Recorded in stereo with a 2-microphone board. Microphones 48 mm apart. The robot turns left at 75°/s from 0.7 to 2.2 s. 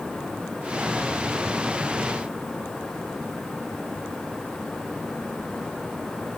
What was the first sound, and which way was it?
Only background noise.